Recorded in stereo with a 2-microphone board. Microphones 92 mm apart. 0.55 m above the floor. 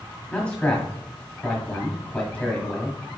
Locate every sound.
0.3 s a man speaking: 15° left (ahead or behind), 1.2 m